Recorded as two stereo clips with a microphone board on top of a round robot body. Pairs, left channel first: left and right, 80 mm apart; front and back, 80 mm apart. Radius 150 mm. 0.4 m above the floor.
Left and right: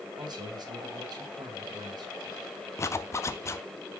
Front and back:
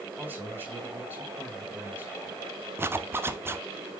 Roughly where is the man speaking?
Behind right.